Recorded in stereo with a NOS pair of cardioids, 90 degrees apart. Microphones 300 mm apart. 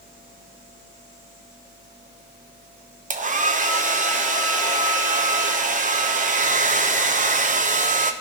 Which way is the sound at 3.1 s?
25° right.